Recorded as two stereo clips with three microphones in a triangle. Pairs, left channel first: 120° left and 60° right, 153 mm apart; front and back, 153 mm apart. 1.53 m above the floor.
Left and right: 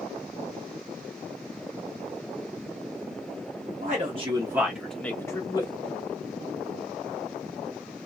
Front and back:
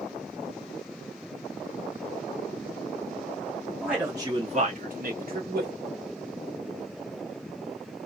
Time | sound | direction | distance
3.8 | a man speaking | 95° right | 1.0 m